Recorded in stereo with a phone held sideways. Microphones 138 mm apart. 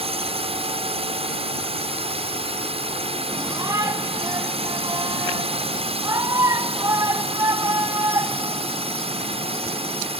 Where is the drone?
45° right (ahead or behind).